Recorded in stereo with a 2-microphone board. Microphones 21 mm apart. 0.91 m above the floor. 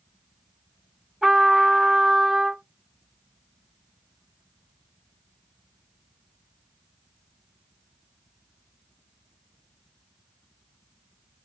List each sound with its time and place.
1.2 s a trumpet: 10° right (ahead or behind), 2.5 m